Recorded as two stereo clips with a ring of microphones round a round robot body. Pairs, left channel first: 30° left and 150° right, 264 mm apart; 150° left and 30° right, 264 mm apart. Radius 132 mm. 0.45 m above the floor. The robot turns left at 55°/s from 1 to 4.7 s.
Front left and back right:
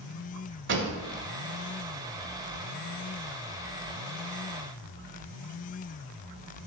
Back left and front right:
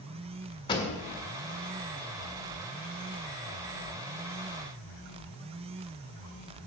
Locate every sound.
0.7 s a pop: 145° right, 1.7 m